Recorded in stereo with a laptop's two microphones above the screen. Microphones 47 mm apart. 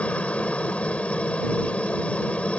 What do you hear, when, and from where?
0.0 s a helicopter: 25° left (ahead or behind)